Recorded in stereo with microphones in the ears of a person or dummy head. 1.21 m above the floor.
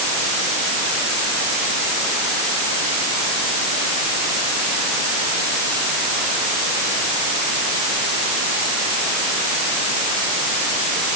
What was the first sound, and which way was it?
Only background noise.